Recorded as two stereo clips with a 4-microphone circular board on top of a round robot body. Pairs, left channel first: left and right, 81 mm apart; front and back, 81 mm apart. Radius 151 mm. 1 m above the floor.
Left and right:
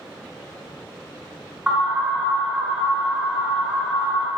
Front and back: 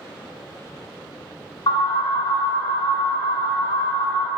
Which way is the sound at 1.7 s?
5° right.